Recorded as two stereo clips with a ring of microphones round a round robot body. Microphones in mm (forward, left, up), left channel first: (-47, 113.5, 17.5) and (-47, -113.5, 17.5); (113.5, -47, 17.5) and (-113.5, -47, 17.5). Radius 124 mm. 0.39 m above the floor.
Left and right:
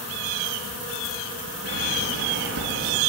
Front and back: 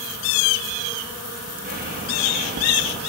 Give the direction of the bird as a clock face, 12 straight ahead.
4 o'clock.